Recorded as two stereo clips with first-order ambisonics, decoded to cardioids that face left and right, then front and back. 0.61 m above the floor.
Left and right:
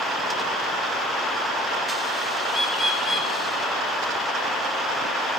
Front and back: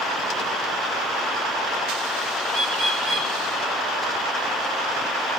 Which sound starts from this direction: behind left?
A bird, at 2.5 s.